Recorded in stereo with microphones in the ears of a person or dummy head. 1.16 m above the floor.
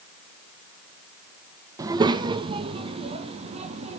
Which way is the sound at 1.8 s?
20° right (ahead or behind).